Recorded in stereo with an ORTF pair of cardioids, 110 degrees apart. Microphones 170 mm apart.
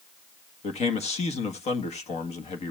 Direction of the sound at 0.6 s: 40° left.